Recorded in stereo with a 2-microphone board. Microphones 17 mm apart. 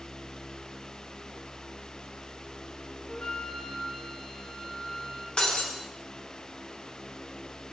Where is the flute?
50° left (ahead or behind), 3 m.